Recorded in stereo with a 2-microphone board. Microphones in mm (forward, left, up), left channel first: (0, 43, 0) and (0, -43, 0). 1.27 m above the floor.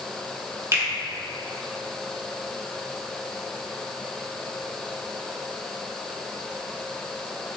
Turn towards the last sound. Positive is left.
turn(degrees=-35)  # may be behind; listen again after turning